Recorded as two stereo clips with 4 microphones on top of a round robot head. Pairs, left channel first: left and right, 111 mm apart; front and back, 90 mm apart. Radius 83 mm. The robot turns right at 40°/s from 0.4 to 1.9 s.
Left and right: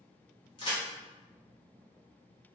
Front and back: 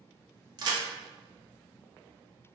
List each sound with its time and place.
0.6 s a crack: 145° left, 0.5 m; by 0.8 s 155° left, 0.5 m